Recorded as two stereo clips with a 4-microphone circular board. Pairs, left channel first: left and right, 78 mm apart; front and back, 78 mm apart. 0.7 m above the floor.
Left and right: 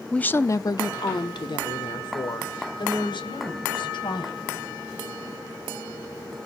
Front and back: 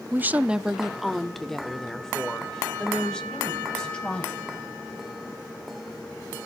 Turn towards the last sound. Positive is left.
turn(degrees=80)